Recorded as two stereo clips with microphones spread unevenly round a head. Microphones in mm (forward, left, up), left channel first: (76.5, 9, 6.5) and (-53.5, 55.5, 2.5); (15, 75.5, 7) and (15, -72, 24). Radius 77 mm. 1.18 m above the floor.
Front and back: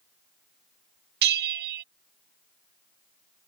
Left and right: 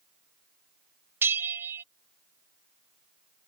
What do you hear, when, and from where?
1.2 s a bell: 165° right